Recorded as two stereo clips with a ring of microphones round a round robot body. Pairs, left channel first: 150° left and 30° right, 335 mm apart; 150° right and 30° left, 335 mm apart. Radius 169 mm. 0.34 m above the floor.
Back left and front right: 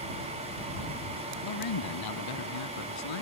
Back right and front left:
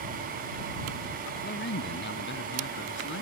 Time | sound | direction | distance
1.4 | a man speaking | 155° left | ?